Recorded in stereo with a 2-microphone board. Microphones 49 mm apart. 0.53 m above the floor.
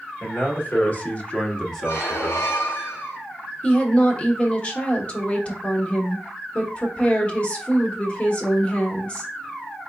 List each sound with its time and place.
0.2 s a man speaking: 45° left (ahead or behind), 1.4 m; by 2.5 s 20° right (ahead or behind), 0.8 m
1.8 s a squeak: 85° left, 1.2 m
3.6 s a woman speaking: 30° left (ahead or behind), 1.0 m